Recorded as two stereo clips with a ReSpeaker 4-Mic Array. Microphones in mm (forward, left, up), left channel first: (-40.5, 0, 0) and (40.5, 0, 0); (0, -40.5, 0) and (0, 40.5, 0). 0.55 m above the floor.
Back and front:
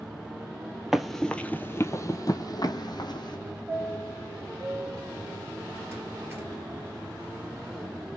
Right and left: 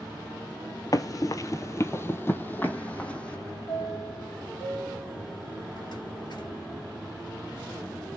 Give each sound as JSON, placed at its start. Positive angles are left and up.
{"t": 0.9, "sound": "running footsteps", "azimuth_deg": -85, "distance_m": 0.7}
{"t": 3.7, "sound": "a chime", "azimuth_deg": -65, "distance_m": 2.5}